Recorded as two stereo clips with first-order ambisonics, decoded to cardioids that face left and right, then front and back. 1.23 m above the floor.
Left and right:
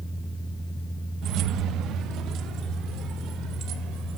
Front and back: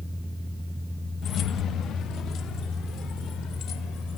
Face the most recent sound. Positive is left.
turn(degrees=-45)